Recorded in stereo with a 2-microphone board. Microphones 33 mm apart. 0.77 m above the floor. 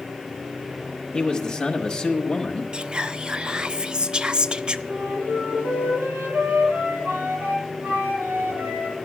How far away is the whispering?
About 0.5 m.